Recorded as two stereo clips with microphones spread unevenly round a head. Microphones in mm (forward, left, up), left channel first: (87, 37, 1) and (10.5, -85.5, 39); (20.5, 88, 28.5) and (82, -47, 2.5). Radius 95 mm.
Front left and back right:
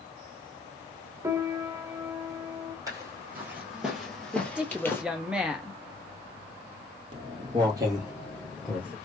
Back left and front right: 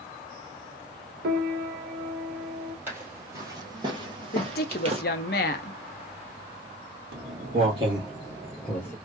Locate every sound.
1.2 s a piano: 70° right, 0.8 m
2.9 s footsteps: 155° right, 1.8 m; by 5.0 s 25° right, 1.7 m
4.3 s a woman speaking: 155° left, 0.6 m
7.1 s footsteps: 105° right, 2 m; by 8.9 s 155° left, 1.7 m